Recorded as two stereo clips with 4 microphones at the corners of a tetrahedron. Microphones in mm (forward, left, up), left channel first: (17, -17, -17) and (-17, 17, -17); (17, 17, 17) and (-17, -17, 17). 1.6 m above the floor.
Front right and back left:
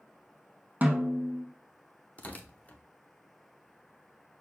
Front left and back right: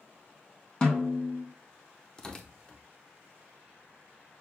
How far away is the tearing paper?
About 0.6 m.